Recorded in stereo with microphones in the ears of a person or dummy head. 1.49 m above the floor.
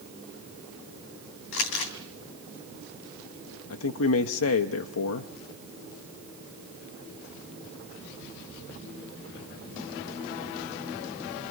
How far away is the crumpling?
About 3 m.